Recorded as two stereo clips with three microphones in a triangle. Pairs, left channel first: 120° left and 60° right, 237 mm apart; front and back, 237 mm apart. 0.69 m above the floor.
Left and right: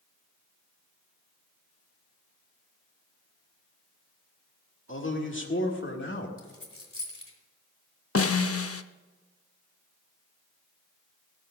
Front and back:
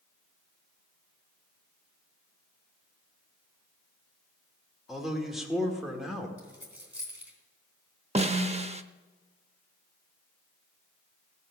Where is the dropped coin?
95° left, 2.5 m.